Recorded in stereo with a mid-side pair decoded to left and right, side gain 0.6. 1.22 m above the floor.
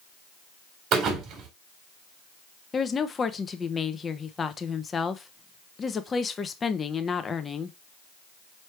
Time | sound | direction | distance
0.9 | a thud | 60° right | 1.7 m
2.7 | a woman speaking | 30° left | 0.7 m